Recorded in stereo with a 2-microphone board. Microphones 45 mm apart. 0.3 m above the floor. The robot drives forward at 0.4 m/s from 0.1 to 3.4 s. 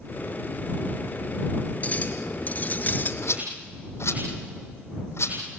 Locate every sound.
1.8 s a clink: 30° left (ahead or behind), 2.5 m; by 3.1 s 40° left (ahead or behind), 2.5 m
3.2 s a rattle: 65° left (ahead or behind), 7 m